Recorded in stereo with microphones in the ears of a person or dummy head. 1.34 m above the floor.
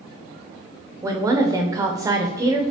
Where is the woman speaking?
10° right (ahead or behind), 0.6 m.